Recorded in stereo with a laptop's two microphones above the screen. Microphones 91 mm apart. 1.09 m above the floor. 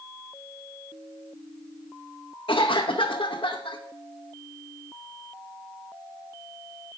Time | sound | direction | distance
2.5 | a cough | 85° left | 0.9 m